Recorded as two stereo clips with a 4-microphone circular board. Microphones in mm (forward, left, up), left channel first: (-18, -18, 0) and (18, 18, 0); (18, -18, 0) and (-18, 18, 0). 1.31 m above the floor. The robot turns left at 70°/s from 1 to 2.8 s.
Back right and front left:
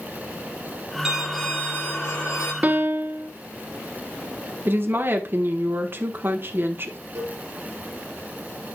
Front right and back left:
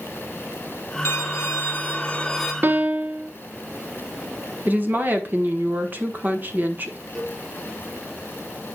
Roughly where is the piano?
Left.